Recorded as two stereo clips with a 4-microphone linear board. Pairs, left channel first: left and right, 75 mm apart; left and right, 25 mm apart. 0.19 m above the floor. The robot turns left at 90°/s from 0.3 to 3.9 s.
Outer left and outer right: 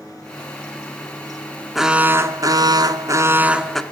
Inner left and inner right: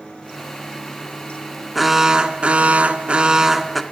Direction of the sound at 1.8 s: Straight ahead.